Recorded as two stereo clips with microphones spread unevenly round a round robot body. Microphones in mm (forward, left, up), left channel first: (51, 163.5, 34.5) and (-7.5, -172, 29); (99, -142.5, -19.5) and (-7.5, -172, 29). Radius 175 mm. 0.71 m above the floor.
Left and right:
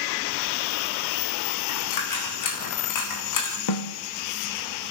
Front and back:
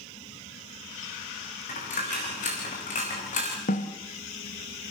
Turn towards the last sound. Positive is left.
turn(degrees=50)